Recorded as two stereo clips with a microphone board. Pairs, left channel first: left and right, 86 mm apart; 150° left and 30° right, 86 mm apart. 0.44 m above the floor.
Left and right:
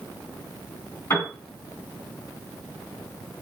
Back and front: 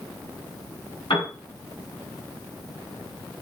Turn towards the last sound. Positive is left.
turn(degrees=145)